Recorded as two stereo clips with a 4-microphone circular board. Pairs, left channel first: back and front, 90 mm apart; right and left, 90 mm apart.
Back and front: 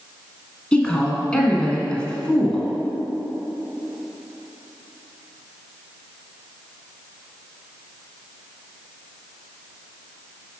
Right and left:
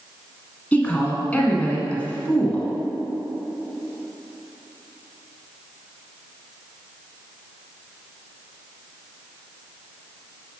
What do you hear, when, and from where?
0.7 s a woman speaking: 125° right, 1.1 m